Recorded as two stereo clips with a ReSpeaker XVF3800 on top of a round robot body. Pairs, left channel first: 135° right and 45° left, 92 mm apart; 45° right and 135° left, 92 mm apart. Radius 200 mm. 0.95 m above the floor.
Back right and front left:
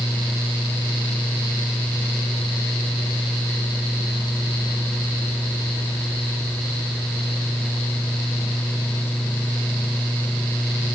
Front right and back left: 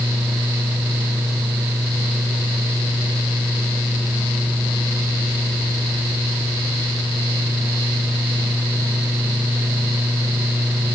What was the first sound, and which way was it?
Only background noise.